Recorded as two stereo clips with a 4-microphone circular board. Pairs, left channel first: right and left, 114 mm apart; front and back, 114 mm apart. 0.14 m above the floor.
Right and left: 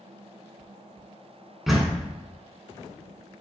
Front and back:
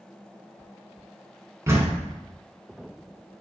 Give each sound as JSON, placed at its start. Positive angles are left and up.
{"t": 1.7, "sound": "a door slam", "azimuth_deg": 180, "distance_m": 0.9}